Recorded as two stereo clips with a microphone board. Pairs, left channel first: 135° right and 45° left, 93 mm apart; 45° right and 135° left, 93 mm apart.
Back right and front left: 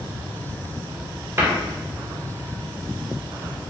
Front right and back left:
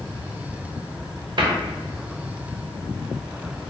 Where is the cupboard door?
105° left, 0.6 m.